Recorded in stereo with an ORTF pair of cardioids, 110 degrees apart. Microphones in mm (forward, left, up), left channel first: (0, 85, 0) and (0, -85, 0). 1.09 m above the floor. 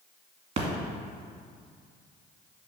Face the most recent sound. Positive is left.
turn(degrees=-40)